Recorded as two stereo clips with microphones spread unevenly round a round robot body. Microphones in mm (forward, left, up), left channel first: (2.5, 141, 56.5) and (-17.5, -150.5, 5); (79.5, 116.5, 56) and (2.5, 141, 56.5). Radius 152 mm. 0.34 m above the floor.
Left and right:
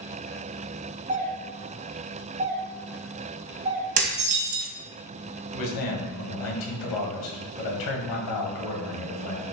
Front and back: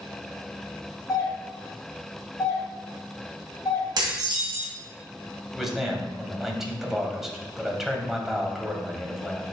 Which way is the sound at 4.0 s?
155° right.